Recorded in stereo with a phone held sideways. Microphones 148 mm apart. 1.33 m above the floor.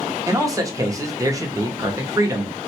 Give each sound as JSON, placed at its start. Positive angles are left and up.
{"t": 0.3, "sound": "a man speaking", "side_deg": -20, "distance_m": 0.7}